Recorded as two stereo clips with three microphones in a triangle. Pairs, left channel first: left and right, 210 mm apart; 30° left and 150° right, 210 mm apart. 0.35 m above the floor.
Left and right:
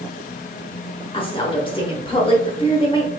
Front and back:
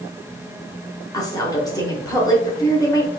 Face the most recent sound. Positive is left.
turn(degrees=75)